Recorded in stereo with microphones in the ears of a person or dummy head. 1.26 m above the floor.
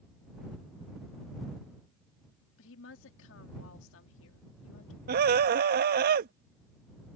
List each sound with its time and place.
2.6 s a woman speaking: 75° left (ahead or behind)
5.1 s a scream: 55° right (ahead or behind)